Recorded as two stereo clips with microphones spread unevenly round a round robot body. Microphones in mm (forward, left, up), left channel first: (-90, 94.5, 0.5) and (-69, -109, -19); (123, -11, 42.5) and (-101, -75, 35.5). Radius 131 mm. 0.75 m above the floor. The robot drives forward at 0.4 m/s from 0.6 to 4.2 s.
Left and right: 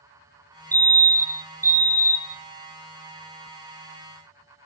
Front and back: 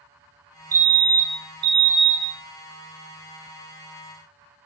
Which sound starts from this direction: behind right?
A fire alarm, at 0.7 s.